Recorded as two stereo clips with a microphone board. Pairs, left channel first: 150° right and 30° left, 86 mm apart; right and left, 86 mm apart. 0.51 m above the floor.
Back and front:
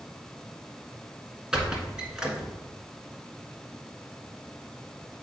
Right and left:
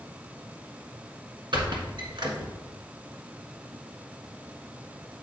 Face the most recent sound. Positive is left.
turn(degrees=110)